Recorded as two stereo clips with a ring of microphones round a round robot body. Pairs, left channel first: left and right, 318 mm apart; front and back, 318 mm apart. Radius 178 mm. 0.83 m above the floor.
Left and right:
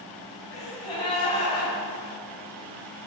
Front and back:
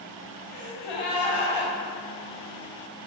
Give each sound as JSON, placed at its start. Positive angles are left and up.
{"t": 0.5, "sound": "a gasp", "azimuth_deg": 10, "distance_m": 2.5}